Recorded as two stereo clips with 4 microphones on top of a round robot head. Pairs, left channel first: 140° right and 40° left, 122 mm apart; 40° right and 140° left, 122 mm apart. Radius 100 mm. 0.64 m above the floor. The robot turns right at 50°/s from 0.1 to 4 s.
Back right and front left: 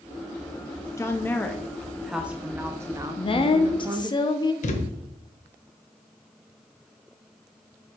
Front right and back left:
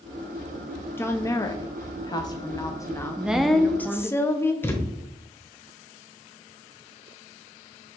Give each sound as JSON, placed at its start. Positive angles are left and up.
{"t": 1.0, "sound": "a woman speaking", "azimuth_deg": -95, "distance_m": 0.9}
{"t": 3.2, "sound": "a woman speaking", "azimuth_deg": -145, "distance_m": 0.9}
{"t": 4.6, "sound": "a thud", "azimuth_deg": -115, "distance_m": 1.2}